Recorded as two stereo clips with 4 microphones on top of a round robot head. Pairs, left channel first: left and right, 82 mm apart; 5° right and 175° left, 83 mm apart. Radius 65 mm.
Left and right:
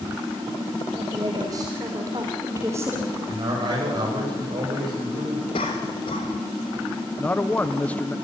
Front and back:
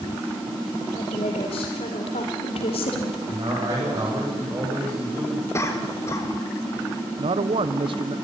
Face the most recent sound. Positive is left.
turn(degrees=165)